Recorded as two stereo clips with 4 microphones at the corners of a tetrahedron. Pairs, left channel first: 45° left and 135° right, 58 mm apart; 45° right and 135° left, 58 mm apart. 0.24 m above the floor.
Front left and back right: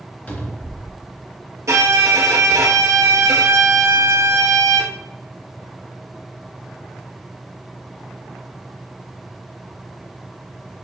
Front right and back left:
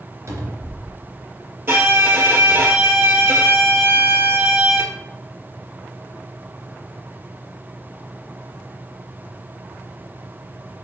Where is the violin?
175° right, 1.6 m.